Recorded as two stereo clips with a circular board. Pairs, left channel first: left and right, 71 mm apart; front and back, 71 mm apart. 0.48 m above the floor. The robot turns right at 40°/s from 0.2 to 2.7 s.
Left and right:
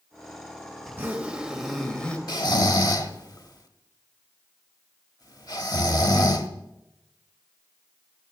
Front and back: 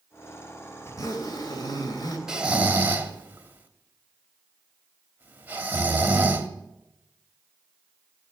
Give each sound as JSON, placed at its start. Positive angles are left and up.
{"t": 0.8, "sound": "a zipper", "azimuth_deg": -35, "distance_m": 2.0}
{"t": 2.3, "sound": "snoring", "azimuth_deg": 100, "distance_m": 1.2}